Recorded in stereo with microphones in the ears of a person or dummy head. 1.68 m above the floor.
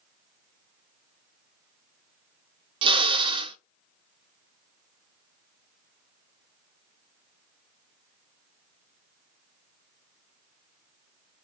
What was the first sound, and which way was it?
A drill, 30° right (ahead or behind).